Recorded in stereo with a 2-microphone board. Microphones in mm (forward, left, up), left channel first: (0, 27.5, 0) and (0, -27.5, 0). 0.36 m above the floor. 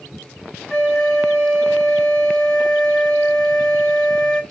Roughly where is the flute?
Centre.